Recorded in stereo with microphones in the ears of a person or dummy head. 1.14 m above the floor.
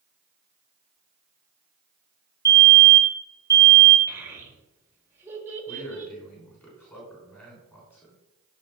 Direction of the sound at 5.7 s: 5° left (ahead or behind).